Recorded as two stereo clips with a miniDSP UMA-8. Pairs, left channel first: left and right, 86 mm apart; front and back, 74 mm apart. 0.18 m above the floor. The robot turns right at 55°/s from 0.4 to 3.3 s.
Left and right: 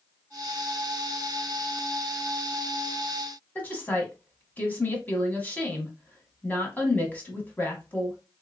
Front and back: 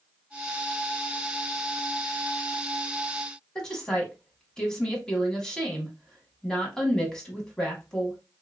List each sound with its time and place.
3.5 s a woman speaking: 65° left, 1.0 m